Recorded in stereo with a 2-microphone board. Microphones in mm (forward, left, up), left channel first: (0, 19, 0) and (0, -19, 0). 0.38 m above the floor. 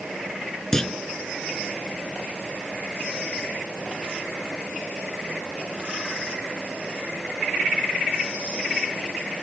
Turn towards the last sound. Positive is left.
turn(degrees=15)  # may be behind; listen again after turning